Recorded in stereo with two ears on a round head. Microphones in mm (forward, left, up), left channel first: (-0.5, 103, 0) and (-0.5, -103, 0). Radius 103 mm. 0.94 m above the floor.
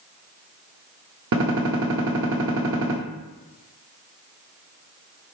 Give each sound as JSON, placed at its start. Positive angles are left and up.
{"t": 1.3, "sound": "a gunshot", "side_deg": -55, "distance_m": 1.0}